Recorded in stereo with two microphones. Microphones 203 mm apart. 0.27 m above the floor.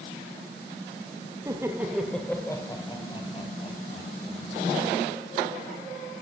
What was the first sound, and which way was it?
Laughter, 20° right (ahead or behind).